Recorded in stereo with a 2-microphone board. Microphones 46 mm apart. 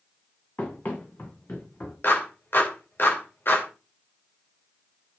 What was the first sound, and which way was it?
Running footsteps, 40° left (ahead or behind).